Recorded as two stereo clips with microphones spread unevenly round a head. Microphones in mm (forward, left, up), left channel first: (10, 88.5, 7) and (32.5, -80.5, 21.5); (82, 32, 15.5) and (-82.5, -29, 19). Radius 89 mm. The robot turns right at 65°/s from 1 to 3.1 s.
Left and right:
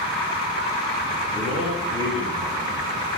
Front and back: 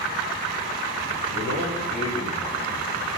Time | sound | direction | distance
1.3 | a man speaking | 150° right | 9.5 m